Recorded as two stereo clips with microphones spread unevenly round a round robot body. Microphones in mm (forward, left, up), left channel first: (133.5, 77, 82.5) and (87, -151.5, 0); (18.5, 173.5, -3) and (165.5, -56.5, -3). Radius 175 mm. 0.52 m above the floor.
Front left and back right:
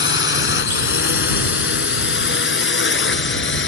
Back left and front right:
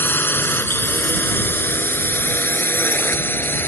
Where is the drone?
40° left.